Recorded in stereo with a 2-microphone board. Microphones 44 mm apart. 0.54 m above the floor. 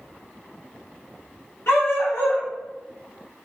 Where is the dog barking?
85° left, 2.0 m.